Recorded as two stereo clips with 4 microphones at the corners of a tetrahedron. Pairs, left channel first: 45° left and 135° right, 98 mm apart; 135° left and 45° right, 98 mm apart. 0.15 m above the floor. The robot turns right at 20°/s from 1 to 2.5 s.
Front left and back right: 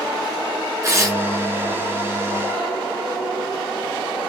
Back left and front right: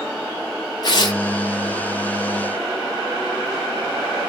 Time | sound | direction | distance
0.8 | tearing paper | 170° left | 1.6 m